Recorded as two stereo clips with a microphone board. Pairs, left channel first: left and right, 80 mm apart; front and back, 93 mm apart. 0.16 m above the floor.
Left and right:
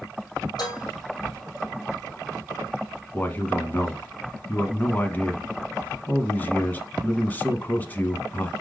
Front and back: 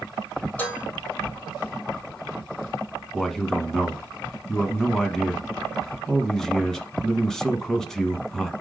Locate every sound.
0.6 s dishes clattering: 70° left, 4 m
3.1 s a man speaking: 75° left, 1.1 m